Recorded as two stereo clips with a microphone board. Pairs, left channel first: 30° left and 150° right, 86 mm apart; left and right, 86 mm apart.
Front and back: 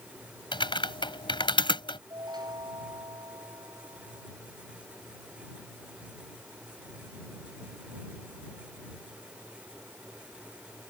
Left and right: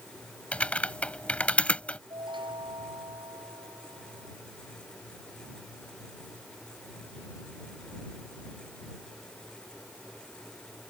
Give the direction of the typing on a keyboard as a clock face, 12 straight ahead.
12 o'clock.